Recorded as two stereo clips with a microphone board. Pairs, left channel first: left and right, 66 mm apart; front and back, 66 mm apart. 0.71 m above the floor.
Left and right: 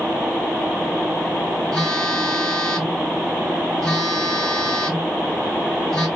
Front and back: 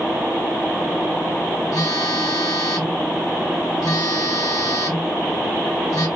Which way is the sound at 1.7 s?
5° left.